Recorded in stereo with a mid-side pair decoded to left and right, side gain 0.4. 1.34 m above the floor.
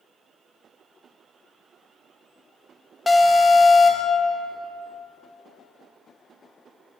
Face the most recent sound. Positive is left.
turn(degrees=30)